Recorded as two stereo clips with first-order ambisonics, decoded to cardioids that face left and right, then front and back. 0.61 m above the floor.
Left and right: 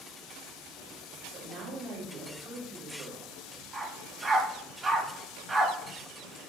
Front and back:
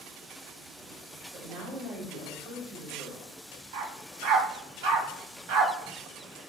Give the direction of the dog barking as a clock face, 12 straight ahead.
6 o'clock.